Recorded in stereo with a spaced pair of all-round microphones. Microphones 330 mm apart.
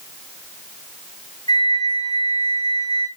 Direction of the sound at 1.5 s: 45° left (ahead or behind).